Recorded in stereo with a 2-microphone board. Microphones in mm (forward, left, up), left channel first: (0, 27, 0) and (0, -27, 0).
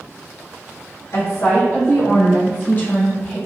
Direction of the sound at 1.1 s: 70° left (ahead or behind).